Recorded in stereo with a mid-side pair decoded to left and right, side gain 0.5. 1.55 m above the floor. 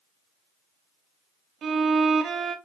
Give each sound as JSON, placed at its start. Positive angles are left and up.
{"t": 1.6, "sound": "a violin", "azimuth_deg": -50, "distance_m": 0.8}